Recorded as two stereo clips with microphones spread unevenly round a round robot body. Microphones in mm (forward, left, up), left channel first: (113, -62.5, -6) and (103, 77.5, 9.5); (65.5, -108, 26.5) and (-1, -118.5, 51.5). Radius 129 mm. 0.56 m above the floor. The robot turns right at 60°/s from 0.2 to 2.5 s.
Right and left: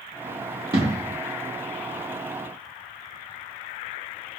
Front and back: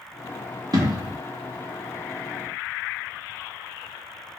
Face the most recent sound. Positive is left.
turn(degrees=-95)